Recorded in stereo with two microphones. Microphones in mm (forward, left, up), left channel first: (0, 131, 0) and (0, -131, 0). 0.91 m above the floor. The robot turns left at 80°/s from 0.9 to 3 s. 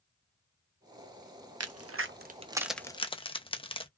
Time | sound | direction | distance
1.6 | a crack | 65° right (ahead or behind) | 0.5 m